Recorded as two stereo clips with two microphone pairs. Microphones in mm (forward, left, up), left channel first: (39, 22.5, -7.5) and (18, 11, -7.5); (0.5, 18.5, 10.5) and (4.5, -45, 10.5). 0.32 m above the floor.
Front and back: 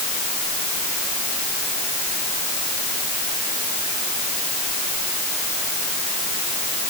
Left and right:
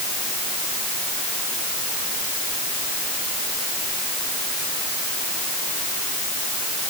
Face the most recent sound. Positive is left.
No sound to turn to.